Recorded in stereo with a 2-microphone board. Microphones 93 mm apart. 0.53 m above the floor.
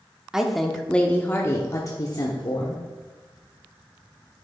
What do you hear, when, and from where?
0.3 s a woman speaking: 5° right (ahead or behind), 1.0 m; by 2.8 s 55° left (ahead or behind), 1.3 m